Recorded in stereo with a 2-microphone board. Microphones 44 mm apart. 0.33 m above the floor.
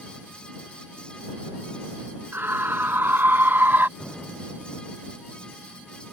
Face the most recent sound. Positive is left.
turn(degrees=-10)  # may be behind; listen again after turning